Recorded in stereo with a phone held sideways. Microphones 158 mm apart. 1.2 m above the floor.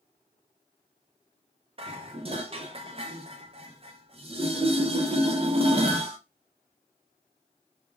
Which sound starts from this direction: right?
Dishes clattering, at 1.8 s.